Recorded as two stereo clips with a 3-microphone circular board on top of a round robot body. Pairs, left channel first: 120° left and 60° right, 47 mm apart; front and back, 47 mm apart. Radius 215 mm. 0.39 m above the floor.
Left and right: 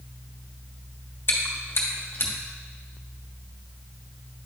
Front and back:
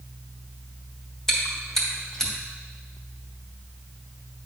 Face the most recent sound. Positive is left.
turn(degrees=80)